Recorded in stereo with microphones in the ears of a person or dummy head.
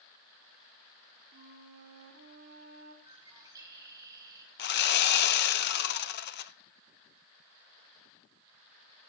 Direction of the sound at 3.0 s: 15° right (ahead or behind).